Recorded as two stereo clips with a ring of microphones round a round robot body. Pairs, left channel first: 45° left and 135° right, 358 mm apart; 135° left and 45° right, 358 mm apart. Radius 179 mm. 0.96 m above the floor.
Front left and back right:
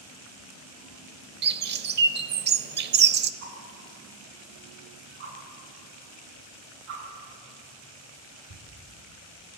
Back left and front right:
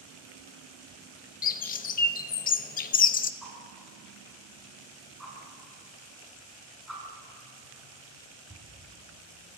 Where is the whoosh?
135° right, 8 m.